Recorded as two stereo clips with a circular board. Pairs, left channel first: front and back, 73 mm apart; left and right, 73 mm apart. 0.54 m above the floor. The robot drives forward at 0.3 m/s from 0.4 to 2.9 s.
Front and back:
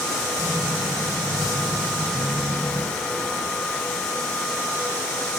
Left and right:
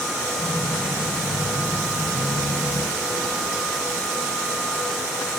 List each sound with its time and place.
Only background noise.